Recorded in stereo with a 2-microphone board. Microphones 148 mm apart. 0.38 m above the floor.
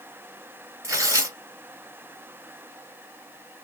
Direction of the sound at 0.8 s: 20° right (ahead or behind).